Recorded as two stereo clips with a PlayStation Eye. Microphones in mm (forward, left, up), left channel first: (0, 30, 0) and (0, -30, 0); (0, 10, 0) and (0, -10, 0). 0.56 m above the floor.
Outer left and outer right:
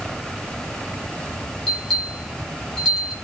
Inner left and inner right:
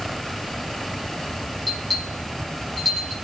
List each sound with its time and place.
1.7 s a bell: centre (ahead or behind), 7.5 m